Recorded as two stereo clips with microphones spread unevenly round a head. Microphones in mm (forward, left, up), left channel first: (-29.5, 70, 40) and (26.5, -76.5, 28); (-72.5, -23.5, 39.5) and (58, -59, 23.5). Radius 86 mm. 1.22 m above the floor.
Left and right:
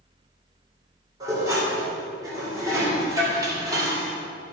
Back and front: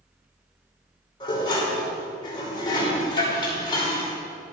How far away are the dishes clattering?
About 3 m.